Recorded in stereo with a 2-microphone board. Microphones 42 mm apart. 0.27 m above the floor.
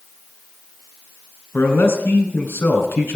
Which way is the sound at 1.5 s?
70° left (ahead or behind).